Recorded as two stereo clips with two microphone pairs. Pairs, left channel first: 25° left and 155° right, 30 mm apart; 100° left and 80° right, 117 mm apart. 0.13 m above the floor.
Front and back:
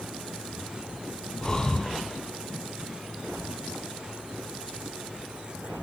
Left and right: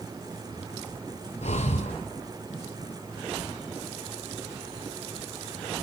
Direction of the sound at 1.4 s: 90° left.